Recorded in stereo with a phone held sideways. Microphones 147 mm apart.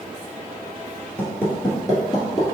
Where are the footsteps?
10° left (ahead or behind), 1.5 m; by 2.5 s 35° left (ahead or behind), 1.9 m.